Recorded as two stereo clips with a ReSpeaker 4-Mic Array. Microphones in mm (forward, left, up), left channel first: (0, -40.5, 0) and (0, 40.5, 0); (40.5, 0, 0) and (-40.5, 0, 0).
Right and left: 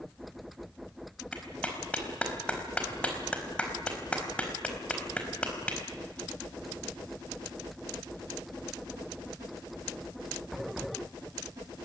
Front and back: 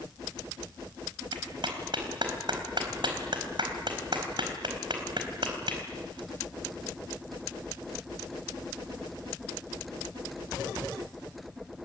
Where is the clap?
165° right, 4.5 m.